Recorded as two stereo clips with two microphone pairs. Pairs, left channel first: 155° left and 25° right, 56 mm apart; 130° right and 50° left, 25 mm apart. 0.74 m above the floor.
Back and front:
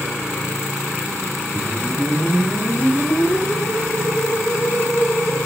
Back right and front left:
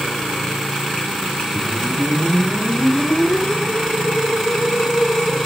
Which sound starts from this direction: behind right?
A whoosh, at 1.6 s.